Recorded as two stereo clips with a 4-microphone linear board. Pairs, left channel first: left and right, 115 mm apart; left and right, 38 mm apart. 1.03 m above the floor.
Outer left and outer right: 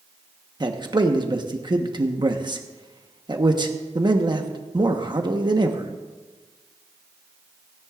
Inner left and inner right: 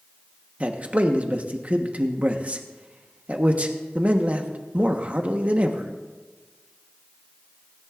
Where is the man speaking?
35° right (ahead or behind), 1.2 m.